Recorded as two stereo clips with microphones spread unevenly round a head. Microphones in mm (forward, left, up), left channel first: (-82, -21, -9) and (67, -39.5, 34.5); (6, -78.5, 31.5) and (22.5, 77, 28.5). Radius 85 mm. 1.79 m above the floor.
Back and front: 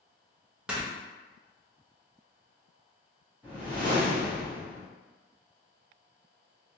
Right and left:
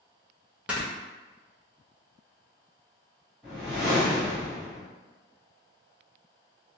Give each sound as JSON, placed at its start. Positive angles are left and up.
{"t": 0.7, "sound": "snoring", "azimuth_deg": 10, "distance_m": 0.6}
{"t": 3.4, "sound": "a whoosh", "azimuth_deg": -10, "distance_m": 1.2}